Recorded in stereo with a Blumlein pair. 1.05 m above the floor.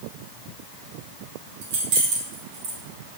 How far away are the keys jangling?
About 1.6 m.